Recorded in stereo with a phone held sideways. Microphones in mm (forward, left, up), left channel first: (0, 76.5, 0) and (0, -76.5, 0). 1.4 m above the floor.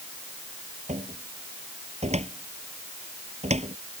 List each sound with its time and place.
0.9 s a cupboard door: 40° right (ahead or behind)